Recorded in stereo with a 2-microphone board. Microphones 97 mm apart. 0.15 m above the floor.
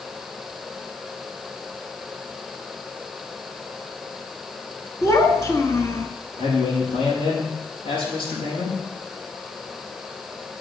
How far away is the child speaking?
About 1.2 m.